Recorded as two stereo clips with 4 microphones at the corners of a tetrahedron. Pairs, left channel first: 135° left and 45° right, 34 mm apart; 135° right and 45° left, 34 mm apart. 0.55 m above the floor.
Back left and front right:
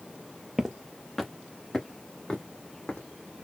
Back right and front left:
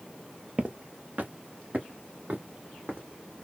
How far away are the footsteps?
About 0.7 m.